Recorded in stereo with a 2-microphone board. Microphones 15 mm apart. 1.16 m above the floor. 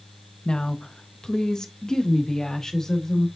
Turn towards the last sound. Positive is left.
turn(degrees=35)  # may be behind; listen again after turning